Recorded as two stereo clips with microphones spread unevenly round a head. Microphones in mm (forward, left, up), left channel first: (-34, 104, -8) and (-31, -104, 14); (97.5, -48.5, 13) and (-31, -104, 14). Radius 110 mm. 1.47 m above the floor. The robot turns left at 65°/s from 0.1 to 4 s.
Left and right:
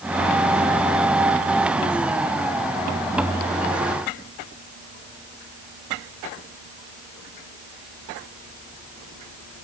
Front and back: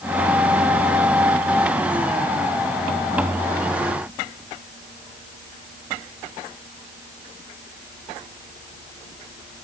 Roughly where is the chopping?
No chopping in this recording.